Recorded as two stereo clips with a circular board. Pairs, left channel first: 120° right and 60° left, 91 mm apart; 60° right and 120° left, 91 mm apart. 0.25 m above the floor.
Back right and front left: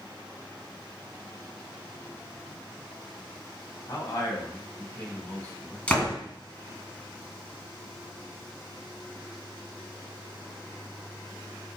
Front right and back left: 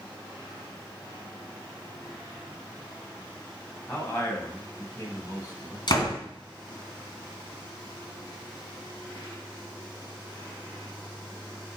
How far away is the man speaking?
About 1.7 m.